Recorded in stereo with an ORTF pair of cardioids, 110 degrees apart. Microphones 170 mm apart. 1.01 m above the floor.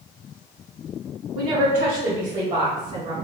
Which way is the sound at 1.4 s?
70° right.